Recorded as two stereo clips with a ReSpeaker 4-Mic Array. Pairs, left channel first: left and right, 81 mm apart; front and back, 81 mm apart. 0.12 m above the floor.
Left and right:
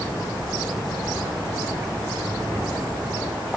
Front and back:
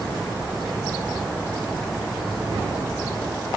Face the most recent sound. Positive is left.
No sound to turn to.